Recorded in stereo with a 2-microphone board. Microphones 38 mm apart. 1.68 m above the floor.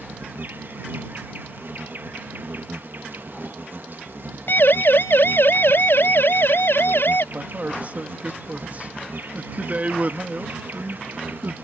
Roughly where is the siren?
Left.